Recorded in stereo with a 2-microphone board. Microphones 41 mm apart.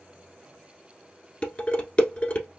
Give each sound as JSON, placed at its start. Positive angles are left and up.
{"t": 1.4, "sound": "dishes clattering", "side_deg": 30, "distance_m": 1.2}